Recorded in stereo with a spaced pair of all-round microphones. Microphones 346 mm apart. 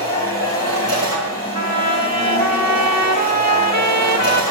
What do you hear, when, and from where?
0.0 s a machine running: 45° right (ahead or behind), 5 m
1.6 s a trumpet: 50° right (ahead or behind), 1.2 m